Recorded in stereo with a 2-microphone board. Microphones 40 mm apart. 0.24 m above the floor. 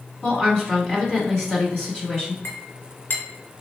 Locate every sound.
0.2 s a woman speaking: 10° left (ahead or behind), 1.8 m
2.4 s a clink: 60° left (ahead or behind), 1.4 m